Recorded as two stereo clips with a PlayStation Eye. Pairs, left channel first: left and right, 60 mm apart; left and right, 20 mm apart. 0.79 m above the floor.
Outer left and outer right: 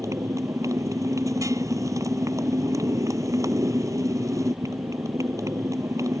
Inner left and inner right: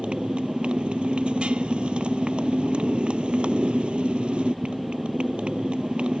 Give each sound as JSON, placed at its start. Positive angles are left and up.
{"t": 0.0, "sound": "a motorcycle", "side_deg": -65}